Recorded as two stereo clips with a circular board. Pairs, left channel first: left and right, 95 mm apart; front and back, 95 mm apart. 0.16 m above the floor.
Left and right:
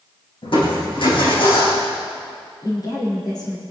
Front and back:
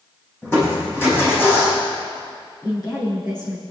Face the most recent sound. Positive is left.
turn(degrees=45)